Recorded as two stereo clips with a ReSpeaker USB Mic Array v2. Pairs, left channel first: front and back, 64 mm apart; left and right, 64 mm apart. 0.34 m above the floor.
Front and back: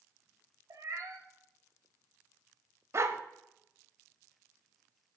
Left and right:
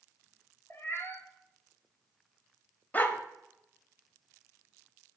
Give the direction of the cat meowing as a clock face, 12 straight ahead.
7 o'clock.